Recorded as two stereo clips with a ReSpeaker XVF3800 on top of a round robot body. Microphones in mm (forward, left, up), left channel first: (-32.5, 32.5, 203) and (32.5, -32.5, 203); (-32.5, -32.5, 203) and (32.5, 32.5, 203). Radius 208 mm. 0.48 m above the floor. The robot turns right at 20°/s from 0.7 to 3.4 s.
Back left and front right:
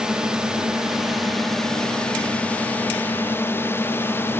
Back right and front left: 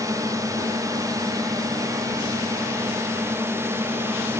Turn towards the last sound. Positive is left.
turn(degrees=85)